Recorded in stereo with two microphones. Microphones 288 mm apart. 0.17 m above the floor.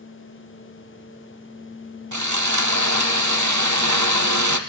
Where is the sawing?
80° right, 1.8 m.